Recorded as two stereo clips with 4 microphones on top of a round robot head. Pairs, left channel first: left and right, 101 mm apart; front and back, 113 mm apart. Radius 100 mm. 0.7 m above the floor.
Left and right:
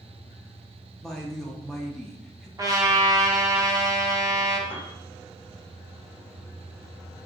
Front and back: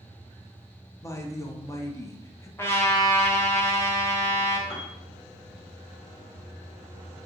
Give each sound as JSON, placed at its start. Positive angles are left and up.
{"t": 1.0, "sound": "a woman speaking", "azimuth_deg": 10, "distance_m": 0.6}
{"t": 2.6, "sound": "a trumpet", "azimuth_deg": -60, "distance_m": 0.6}
{"t": 4.7, "sound": "a piano", "azimuth_deg": 25, "distance_m": 1.6}